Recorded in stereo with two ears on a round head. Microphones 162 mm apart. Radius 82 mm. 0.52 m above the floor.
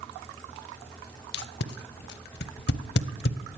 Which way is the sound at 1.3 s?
65° left (ahead or behind).